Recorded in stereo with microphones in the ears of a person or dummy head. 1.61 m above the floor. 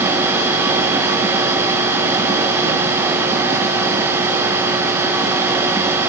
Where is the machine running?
15° right (ahead or behind), 1.2 m.